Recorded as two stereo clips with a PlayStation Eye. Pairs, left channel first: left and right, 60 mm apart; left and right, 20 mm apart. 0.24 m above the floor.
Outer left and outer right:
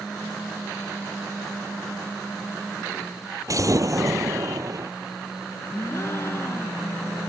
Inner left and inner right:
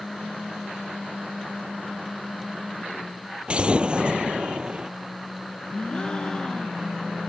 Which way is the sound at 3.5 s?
65° right (ahead or behind).